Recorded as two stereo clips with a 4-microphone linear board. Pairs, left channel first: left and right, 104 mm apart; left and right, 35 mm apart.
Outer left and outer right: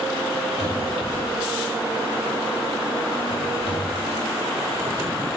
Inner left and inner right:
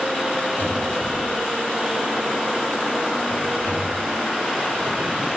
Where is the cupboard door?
80° left, 4.5 m.